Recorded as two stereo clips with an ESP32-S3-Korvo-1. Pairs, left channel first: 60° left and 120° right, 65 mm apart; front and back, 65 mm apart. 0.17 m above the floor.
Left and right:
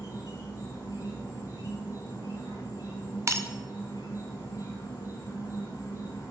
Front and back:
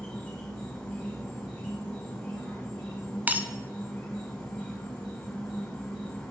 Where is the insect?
65° left, 3 m.